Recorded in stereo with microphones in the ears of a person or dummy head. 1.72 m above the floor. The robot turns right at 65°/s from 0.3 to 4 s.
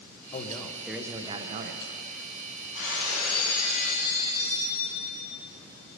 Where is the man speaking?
150° left, 1.1 m; by 1.9 s 110° right, 1.1 m.